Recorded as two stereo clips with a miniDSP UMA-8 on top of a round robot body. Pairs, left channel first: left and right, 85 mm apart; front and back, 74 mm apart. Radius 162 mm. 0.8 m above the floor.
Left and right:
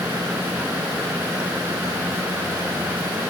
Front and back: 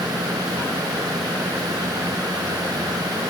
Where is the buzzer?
No buzzer in this recording.